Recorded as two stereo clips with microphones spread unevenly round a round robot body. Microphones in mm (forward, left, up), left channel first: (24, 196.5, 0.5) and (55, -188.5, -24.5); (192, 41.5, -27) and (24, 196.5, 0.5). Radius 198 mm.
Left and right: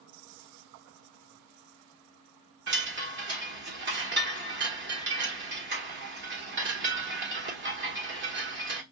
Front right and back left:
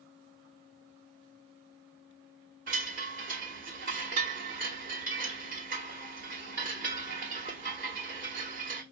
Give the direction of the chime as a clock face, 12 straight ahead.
5 o'clock.